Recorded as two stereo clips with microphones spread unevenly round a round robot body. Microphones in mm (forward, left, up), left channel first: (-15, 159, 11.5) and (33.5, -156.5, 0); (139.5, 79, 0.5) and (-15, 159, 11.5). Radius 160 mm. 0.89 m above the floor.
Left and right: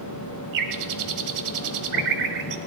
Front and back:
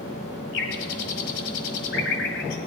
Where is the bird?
55° right, 1.3 m.